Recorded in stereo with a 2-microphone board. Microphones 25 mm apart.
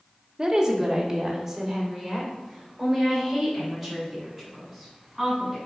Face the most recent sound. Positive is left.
turn(degrees=5)  # may be behind; listen again after turning